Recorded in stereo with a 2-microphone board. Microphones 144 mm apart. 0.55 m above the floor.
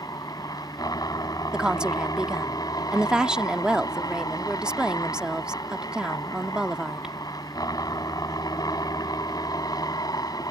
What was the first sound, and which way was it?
A helicopter, 25° left (ahead or behind).